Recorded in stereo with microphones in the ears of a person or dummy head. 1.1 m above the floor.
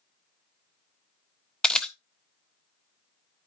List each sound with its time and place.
1.6 s a camera shutter: centre (ahead or behind), 0.5 m